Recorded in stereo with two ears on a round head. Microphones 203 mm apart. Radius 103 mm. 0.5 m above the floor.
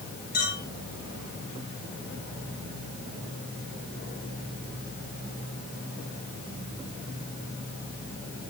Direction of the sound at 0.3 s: 40° left (ahead or behind).